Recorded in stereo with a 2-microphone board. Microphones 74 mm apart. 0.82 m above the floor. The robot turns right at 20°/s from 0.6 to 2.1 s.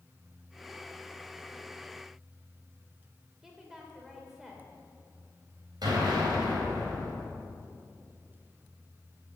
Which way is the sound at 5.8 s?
70° right (ahead or behind).